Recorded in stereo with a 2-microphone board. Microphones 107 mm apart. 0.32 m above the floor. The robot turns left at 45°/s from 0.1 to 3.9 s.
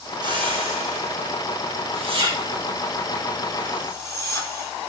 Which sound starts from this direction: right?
A whoosh, at 0.2 s.